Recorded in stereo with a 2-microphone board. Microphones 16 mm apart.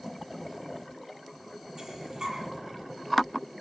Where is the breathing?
45° right (ahead or behind), 9 m.